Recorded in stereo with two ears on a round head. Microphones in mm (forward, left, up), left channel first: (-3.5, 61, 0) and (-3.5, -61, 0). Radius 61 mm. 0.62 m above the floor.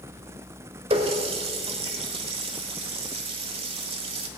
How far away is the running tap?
About 1.2 m.